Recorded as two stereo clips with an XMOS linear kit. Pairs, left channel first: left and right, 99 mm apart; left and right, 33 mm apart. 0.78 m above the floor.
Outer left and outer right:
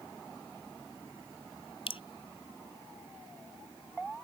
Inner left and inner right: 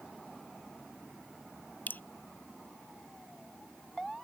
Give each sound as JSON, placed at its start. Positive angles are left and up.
{"t": 1.9, "sound": "dripping", "side_deg": 80}